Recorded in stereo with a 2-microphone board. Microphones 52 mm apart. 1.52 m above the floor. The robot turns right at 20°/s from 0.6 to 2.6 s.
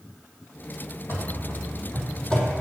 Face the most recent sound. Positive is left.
turn(degrees=10)  # may be behind; listen again after turning